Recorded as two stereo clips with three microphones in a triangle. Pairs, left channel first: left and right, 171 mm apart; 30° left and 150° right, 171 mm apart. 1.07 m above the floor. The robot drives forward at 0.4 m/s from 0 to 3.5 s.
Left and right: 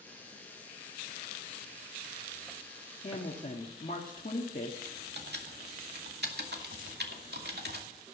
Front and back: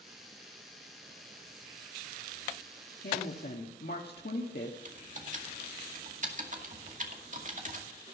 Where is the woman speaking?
45° left, 1.8 m; by 4.8 s 50° left, 1.7 m.